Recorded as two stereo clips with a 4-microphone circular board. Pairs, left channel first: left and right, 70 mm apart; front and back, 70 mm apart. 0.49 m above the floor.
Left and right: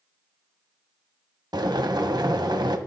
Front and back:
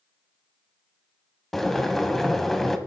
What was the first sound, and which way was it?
Boiling, 85° right.